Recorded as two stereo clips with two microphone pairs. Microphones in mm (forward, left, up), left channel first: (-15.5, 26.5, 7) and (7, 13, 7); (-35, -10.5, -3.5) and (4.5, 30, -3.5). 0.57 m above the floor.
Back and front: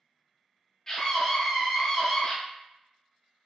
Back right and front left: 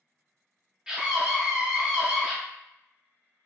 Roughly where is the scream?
Left.